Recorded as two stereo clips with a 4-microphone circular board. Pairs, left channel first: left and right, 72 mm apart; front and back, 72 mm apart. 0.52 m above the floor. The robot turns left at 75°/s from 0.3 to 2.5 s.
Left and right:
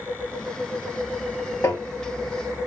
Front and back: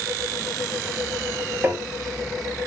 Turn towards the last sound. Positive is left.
turn(degrees=65)